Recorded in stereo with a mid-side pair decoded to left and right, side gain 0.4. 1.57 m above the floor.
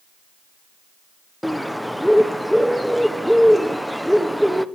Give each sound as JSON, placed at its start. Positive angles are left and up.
{"t": 1.4, "sound": "a bird", "azimuth_deg": 0, "distance_m": 1.0}